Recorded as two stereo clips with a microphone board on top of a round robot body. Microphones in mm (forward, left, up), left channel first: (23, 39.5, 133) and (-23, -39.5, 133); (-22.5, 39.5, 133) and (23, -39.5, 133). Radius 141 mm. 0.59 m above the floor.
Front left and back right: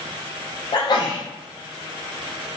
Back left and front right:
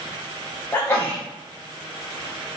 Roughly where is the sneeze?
Ahead left.